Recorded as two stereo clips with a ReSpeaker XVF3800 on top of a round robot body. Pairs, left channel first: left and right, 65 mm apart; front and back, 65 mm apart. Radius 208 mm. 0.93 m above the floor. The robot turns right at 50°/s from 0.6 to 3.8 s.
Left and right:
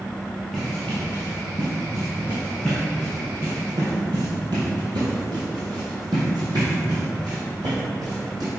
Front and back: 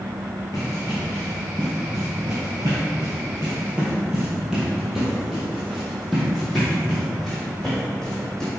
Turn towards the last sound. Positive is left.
turn(degrees=-80)